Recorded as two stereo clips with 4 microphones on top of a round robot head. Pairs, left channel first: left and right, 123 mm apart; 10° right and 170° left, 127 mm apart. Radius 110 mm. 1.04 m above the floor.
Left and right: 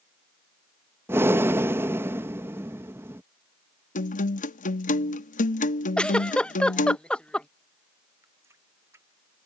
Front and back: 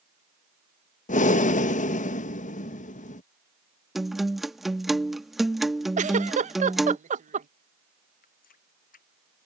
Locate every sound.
1.1 s breathing: 20° right
4.0 s a guitar: 85° left
6.0 s a giggle: 170° left
8.2 s a running tap: 15° right